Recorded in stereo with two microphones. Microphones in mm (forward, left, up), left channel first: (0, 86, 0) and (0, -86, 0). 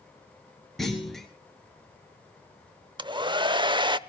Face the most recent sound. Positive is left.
turn(degrees=-30)  # may be behind; listen again after turning